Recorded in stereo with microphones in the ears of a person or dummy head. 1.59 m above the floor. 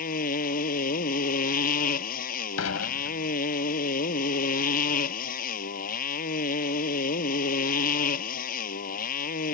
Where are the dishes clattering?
85° left.